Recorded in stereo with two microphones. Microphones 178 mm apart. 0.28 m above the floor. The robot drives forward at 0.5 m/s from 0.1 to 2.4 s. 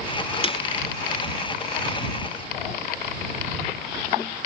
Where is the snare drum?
30° left (ahead or behind); by 0.6 s 35° left (ahead or behind).